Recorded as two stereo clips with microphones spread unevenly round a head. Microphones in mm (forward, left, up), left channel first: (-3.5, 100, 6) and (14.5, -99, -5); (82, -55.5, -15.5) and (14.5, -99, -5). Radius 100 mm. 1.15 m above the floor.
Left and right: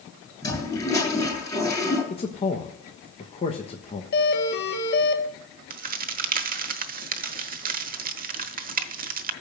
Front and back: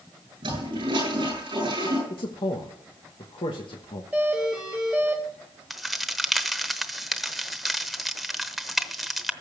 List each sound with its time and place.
0.4 s a toilet flushing: 170° left, 8.5 m
2.1 s a man speaking: 30° left, 1.1 m
4.1 s a doorbell: 130° left, 1.6 m
5.7 s a crack: 65° right, 1.0 m